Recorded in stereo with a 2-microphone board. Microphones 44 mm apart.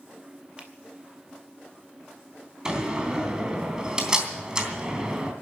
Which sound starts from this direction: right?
A finger snap, at 0.6 s.